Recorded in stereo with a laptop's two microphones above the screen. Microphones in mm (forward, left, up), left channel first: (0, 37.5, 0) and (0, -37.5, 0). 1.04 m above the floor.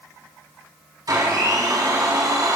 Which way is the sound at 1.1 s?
55° right (ahead or behind).